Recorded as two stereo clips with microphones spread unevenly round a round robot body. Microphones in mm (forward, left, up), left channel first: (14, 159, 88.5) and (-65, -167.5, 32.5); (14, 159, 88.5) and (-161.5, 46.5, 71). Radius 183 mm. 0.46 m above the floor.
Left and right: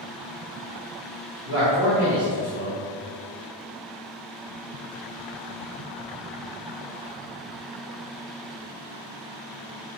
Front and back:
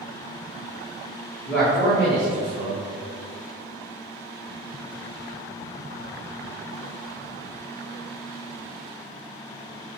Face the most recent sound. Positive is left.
turn(degrees=-60)